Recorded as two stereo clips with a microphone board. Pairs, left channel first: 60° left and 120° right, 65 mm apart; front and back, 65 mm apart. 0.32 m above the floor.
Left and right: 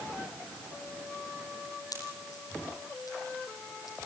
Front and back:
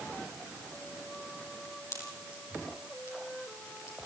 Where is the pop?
35° left, 8 m.